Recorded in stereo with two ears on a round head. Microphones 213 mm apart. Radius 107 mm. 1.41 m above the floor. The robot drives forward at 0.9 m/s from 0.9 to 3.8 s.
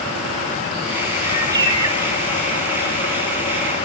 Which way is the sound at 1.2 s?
20° right (ahead or behind).